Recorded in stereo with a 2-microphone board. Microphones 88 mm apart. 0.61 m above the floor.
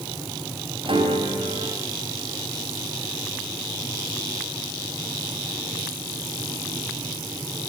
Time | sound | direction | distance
0.8 | a piano | 75° right (ahead or behind) | 5 m